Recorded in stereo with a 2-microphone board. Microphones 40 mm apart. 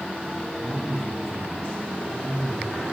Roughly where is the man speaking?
Centre.